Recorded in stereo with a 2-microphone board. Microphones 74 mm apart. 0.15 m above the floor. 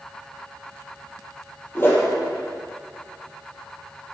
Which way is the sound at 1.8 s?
30° left (ahead or behind).